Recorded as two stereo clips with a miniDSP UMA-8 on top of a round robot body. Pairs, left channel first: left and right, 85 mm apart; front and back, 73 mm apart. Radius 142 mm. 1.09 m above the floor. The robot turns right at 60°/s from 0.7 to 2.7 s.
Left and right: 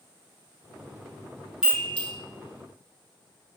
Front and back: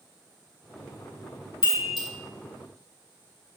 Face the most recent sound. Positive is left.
turn(degrees=55)